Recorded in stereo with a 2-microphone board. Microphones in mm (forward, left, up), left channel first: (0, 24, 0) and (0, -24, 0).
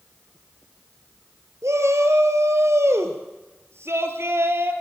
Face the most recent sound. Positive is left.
turn(degrees=-55)  # may be behind; listen again after turning